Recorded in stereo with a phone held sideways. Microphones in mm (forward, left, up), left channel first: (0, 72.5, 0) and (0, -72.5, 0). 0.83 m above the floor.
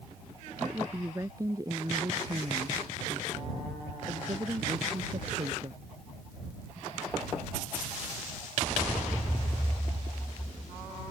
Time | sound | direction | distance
0.6 | a woman speaking | 20° right (ahead or behind) | ?